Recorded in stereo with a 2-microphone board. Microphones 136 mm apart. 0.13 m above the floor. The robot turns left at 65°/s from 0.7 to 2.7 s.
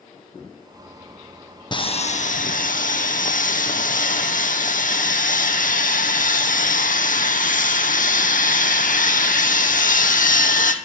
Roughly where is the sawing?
Behind left.